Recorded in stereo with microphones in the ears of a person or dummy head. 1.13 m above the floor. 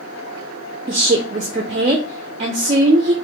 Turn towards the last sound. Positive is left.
turn(degrees=-30)  # may be behind; listen again after turning